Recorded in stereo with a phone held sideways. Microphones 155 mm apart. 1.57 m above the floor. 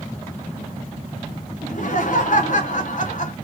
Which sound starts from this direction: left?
Laughter, at 1.6 s.